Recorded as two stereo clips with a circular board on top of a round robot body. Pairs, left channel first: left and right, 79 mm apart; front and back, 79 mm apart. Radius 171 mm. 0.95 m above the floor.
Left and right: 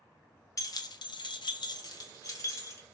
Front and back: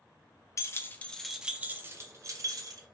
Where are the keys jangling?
50° left, 0.6 m; by 2.8 s 145° left, 1.0 m.